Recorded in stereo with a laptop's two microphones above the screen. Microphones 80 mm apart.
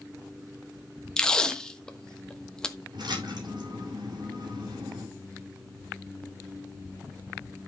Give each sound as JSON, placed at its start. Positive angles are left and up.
{"t": 1.2, "sound": "tape being pulled", "side_deg": 10, "distance_m": 1.2}
{"t": 2.9, "sound": "a splash", "side_deg": -70, "distance_m": 5.5}